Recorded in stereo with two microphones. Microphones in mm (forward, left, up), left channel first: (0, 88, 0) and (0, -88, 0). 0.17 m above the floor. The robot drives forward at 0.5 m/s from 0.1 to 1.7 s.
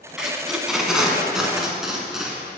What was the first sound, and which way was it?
Tape being pulled, 5° right (ahead or behind).